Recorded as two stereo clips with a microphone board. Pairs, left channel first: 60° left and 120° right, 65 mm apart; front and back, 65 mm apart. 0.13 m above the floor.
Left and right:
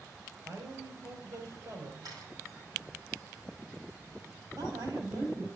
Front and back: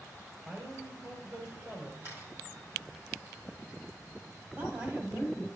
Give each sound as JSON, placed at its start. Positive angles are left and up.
{"t": 0.5, "sound": "a man speaking", "azimuth_deg": -125, "distance_m": 3.0}
{"t": 2.0, "sound": "a camera shutter", "azimuth_deg": -130, "distance_m": 3.0}
{"t": 4.6, "sound": "a woman speaking", "azimuth_deg": -120, "distance_m": 3.5}